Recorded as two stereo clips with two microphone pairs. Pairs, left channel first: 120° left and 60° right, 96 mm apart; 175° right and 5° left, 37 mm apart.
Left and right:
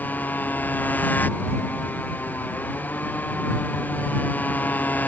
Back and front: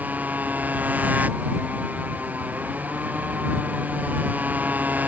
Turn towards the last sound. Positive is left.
turn(degrees=45)